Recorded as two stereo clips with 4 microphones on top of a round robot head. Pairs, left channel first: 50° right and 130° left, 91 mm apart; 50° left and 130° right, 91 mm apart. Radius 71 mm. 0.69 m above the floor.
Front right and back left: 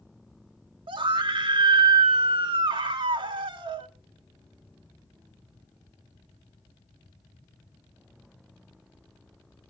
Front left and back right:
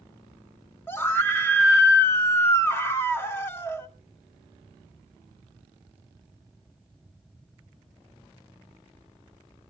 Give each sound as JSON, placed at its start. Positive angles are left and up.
{"t": 0.9, "sound": "a scream", "azimuth_deg": 115, "distance_m": 2.0}